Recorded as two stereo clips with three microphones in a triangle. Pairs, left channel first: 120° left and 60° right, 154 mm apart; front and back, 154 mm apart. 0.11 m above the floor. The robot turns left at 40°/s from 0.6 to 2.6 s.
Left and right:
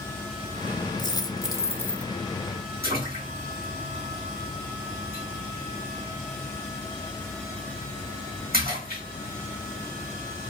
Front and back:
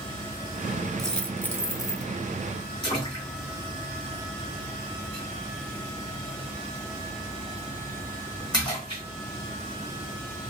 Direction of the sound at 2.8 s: 65° right.